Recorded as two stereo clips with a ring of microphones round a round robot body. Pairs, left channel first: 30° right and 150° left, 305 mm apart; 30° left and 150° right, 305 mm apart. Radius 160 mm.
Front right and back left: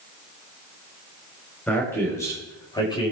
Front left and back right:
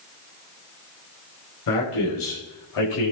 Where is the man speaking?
55° left, 4.5 m; by 3.1 s 45° left, 6 m.